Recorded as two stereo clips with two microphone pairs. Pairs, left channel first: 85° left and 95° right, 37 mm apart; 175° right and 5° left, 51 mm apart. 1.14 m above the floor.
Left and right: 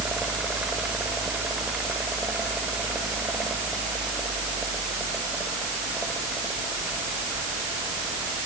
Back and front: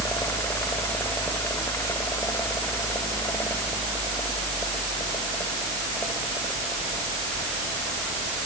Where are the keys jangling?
I don't hear keys jangling.